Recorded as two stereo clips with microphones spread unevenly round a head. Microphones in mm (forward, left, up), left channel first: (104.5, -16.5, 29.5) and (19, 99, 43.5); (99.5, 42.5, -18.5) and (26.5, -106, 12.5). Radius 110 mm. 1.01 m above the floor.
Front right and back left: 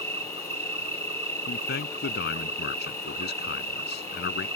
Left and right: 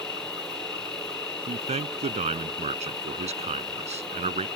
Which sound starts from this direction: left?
An insect, at 0.0 s.